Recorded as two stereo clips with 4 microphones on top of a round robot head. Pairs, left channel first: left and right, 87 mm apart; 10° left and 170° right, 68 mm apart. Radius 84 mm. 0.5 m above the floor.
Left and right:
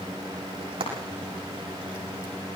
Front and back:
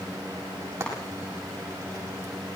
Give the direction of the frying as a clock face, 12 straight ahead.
4 o'clock.